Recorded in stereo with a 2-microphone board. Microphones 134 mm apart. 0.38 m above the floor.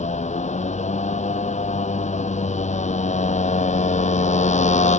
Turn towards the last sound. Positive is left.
turn(degrees=60)  # may be behind; listen again after turning